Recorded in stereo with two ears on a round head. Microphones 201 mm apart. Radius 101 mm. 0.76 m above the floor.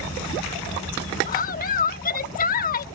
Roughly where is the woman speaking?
Left.